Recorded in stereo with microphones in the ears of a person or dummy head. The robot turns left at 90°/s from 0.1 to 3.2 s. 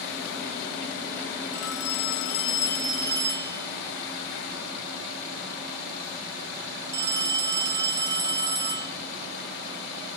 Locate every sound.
1.5 s a phone ringing: 130° left, 0.9 m; by 8.9 s 20° right, 0.9 m